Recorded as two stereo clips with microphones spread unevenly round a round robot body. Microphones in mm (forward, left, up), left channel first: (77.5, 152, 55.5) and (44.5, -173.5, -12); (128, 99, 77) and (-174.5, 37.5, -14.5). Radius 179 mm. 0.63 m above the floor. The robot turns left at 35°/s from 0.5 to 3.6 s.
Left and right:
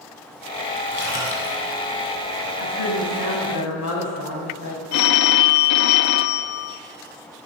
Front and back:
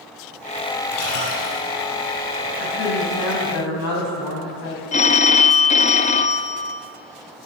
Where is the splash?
25° left, 5.5 m; by 1.6 s 5° left, 5.5 m.